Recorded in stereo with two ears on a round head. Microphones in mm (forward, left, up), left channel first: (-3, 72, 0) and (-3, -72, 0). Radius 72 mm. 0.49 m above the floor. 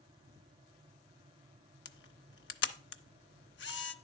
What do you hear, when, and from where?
1.9 s a camera shutter: 80° left, 0.6 m